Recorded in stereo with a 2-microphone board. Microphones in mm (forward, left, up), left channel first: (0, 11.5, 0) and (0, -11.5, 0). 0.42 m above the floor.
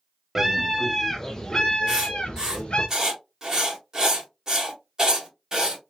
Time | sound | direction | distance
0.3 | a scream | 15° right (ahead or behind) | 1.0 m
1.9 | writing | 30° right (ahead or behind) | 1.7 m